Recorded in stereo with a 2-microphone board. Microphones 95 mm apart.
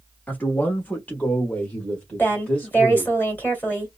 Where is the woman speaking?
20° left (ahead or behind), 2 m.